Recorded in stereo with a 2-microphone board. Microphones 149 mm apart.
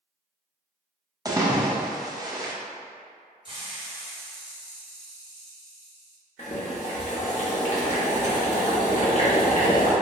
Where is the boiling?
50° left (ahead or behind), 0.8 m.